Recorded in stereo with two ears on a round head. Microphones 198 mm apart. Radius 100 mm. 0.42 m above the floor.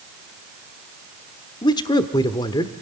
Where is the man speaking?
20° left (ahead or behind), 1.1 m.